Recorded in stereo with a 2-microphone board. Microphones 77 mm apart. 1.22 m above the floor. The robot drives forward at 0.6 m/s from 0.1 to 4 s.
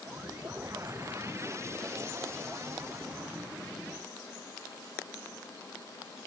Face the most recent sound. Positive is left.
No sound to turn to.